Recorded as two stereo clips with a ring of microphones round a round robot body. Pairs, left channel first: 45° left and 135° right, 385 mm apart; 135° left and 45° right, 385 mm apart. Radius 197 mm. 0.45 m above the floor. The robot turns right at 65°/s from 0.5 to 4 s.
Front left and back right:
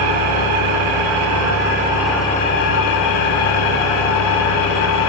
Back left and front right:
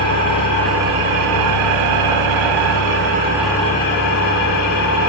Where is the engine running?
150° right, 1.6 m; by 5.1 s 80° left, 1.6 m.